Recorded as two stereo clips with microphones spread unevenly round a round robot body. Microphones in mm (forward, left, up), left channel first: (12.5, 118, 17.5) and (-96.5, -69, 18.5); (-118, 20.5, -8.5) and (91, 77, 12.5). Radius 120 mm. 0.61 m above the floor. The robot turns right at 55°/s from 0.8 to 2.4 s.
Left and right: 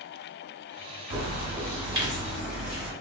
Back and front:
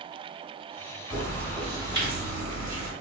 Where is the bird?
105° right, 1.0 m; by 2.9 s 30° right, 1.0 m.